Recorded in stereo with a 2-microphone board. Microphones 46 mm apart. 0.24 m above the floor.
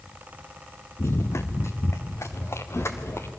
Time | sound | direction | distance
1.0 | running footsteps | 65° left (ahead or behind) | 1.4 m